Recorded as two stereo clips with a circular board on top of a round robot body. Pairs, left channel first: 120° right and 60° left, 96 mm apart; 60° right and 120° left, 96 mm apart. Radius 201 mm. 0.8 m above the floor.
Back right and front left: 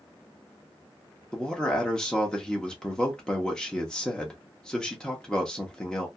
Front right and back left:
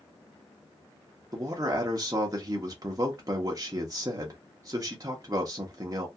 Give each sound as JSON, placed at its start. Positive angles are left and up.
{"t": 1.3, "sound": "a man speaking", "azimuth_deg": 160, "distance_m": 0.9}